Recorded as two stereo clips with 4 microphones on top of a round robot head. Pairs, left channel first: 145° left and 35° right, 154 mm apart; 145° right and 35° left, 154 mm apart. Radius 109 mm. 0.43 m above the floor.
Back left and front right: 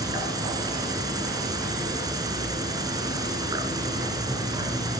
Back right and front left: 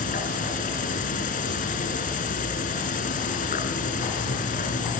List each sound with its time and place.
0.0 s an insect: 105° right, 2.5 m